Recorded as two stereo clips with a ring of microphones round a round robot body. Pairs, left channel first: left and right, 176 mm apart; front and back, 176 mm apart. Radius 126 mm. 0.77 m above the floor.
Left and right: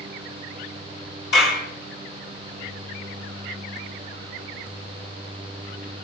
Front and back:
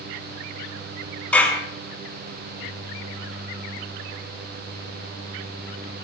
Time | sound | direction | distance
1.3 | a clap | 80° left | 6 m